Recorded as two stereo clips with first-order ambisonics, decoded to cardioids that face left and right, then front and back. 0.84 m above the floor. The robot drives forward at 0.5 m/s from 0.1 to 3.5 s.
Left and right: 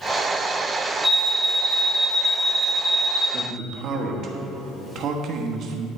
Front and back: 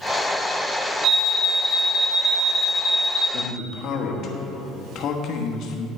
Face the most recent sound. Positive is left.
turn(degrees=-45)